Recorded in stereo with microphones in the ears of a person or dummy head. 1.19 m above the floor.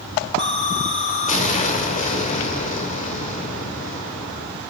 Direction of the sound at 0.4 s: 50° left (ahead or behind).